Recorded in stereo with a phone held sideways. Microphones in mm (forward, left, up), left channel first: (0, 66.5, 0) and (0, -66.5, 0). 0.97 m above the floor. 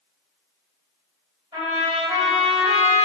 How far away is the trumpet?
About 1.7 m.